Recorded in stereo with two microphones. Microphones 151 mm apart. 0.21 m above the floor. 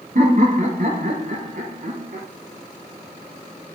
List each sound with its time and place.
0.1 s laughter: 65° right (ahead or behind), 3 m; by 2.3 s 75° right (ahead or behind), 3.5 m